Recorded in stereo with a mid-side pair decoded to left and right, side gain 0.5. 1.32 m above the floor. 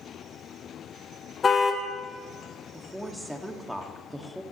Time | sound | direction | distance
1.4 | a car horn | 35° left | 2.5 m
2.7 | a woman speaking | 5° right | 2.5 m